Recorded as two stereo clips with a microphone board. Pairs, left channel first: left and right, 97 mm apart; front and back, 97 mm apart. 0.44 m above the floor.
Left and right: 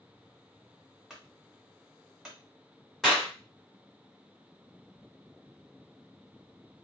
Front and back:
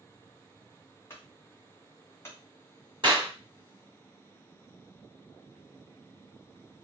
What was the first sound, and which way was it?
A clunk, 10° right.